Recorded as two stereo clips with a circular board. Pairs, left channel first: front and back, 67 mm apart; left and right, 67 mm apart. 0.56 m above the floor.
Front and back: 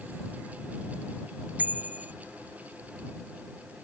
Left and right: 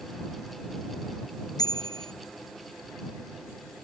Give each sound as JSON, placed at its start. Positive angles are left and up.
{"t": 1.6, "sound": "a bicycle bell", "azimuth_deg": 115}